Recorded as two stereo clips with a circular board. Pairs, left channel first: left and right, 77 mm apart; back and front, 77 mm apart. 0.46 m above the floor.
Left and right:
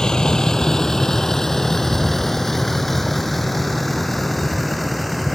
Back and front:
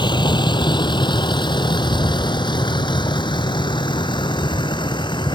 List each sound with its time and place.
0.0 s a vehicle: 170° left; by 5.3 s straight behind